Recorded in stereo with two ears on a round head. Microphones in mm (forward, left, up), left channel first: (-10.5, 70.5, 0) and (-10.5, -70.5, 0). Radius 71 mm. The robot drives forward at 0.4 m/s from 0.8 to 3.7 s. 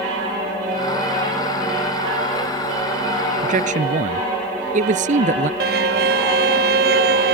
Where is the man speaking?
55° right (ahead or behind).